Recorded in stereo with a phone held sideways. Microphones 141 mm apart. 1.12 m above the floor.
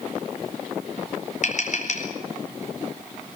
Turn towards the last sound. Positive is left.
turn(degrees=60)  # may be behind; listen again after turning